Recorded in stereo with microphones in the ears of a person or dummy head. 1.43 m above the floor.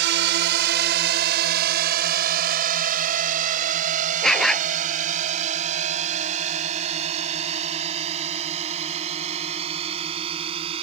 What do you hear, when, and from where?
0.0 s a drone: 70° right (ahead or behind); by 10.8 s 35° right (ahead or behind)
4.2 s a dog barking: 5° right (ahead or behind)